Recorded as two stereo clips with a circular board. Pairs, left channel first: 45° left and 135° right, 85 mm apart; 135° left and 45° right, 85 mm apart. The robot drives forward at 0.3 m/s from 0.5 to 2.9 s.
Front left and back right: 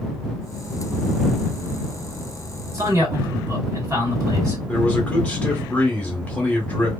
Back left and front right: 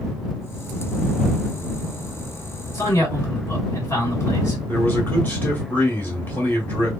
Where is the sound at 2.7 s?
175° right, 1.8 m.